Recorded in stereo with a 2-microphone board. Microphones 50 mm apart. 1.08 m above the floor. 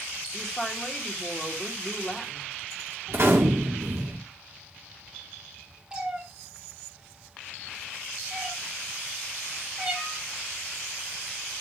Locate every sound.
0.3 s a woman speaking: 5° left (ahead or behind), 3 m
3.1 s a gunshot: 55° right (ahead or behind), 3 m
5.9 s a cat meowing: 20° right (ahead or behind), 4 m